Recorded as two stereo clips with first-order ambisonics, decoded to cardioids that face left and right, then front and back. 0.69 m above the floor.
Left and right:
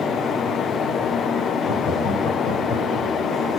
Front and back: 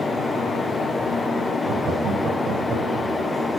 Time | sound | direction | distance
1.6 | laughter | 135° left | 3.5 m